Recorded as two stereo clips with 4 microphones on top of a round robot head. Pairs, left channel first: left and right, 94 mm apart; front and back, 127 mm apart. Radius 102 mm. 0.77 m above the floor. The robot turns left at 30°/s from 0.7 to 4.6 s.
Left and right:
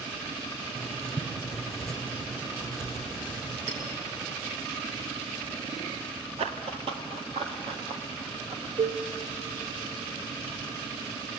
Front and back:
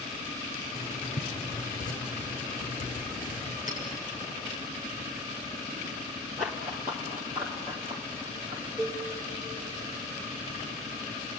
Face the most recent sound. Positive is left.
turn(degrees=-95)